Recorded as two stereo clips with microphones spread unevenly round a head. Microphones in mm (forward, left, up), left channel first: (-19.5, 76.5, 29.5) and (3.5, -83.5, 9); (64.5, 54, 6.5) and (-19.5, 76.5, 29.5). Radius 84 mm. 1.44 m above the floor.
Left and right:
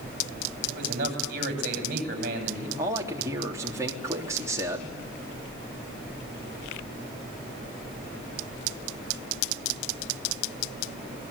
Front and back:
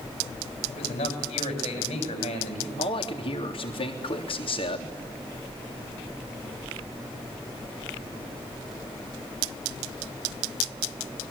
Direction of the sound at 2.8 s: 10° right.